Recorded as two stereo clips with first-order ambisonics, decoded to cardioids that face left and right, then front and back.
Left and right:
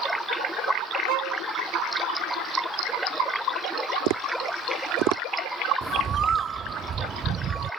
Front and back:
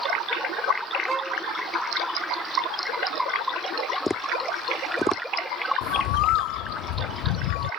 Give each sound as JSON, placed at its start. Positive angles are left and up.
{"t": 1.1, "sound": "a violin", "azimuth_deg": -95}
{"t": 4.1, "sound": "tapping", "azimuth_deg": -80}
{"t": 5.8, "sound": "a bird", "azimuth_deg": -25}